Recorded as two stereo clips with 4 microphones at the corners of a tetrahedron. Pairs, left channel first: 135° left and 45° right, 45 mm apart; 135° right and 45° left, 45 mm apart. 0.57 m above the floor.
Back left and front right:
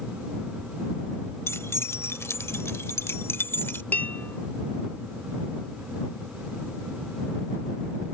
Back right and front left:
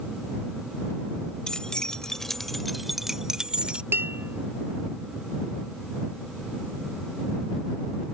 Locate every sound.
1.5 s keys jangling: 150° left; by 3.8 s 105° left
3.9 s dishes clattering: 85° left